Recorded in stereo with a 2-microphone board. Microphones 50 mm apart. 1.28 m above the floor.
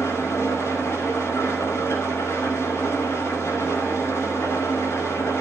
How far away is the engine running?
About 6.5 m.